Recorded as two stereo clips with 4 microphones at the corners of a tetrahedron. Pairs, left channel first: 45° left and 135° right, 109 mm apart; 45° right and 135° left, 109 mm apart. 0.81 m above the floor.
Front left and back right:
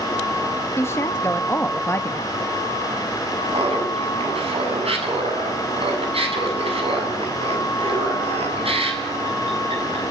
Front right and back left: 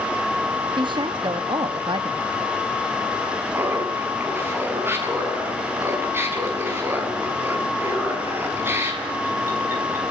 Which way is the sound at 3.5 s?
155° right.